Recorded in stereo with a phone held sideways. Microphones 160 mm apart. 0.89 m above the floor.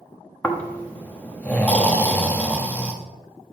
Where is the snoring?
10° left (ahead or behind), 1.0 m.